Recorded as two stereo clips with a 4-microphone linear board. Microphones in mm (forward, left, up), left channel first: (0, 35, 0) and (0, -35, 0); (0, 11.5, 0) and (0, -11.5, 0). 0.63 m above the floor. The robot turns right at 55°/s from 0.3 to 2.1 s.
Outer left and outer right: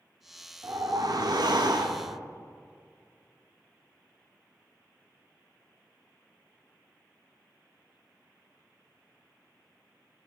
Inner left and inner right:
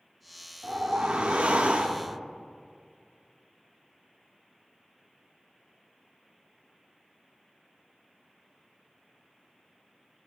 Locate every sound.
0.6 s a whoosh: 135° right, 0.5 m; by 2.2 s 55° right, 0.5 m